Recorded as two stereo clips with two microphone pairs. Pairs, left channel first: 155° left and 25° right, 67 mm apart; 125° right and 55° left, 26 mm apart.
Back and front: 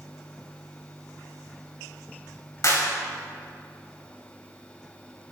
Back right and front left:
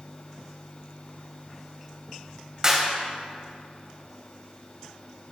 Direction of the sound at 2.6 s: 120° left.